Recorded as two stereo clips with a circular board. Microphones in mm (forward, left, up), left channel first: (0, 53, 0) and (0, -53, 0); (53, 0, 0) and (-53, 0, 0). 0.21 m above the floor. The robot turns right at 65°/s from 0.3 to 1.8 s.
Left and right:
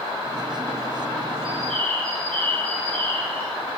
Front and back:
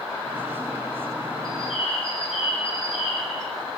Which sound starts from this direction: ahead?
A bird, at 1.4 s.